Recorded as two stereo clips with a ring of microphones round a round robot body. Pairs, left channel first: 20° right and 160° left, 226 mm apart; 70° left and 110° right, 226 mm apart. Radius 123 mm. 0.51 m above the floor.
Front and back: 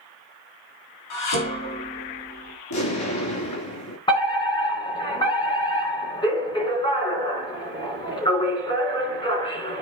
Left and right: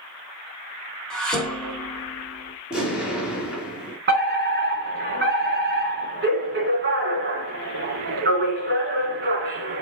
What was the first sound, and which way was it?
Dishes clattering, 20° right.